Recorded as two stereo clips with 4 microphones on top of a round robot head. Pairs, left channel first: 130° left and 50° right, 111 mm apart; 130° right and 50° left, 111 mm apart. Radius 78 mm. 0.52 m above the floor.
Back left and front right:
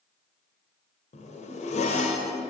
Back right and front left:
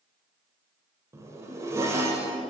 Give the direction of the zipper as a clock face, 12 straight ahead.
8 o'clock.